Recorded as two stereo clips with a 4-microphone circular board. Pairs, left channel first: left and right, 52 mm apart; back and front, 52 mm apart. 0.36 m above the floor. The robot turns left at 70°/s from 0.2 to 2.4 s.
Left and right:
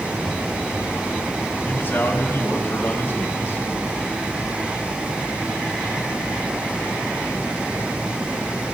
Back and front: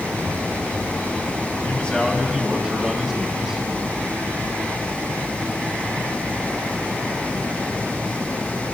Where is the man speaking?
130° left, 2.5 m; by 3.6 s 75° left, 2.5 m.